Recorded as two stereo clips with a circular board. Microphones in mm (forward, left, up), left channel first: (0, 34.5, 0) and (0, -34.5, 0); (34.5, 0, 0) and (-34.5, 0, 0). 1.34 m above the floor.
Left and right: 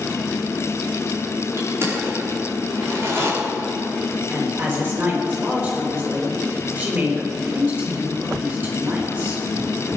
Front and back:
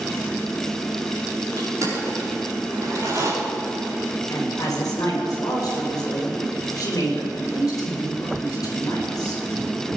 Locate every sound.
1.6 s crushing: 140° right, 4 m
4.3 s a woman speaking: 30° right, 4 m